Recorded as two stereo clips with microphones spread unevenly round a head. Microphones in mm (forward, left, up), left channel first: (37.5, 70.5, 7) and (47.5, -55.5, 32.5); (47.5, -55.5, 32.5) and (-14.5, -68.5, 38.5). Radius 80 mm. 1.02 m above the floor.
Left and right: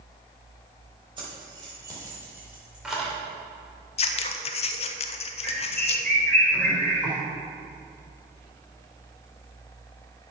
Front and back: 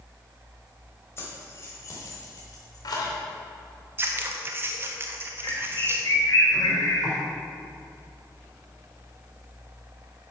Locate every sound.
1.2 s keys jangling: 35° right, 4 m; by 3.2 s 5° left, 2.5 m
4.0 s scissors: 130° left, 0.6 m
5.4 s a bird: 15° left, 4 m